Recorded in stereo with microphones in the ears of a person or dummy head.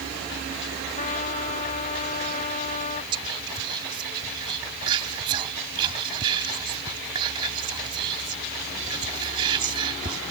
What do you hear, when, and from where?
0.9 s a trumpet: 40° left (ahead or behind)
3.1 s whispering: 25° right (ahead or behind)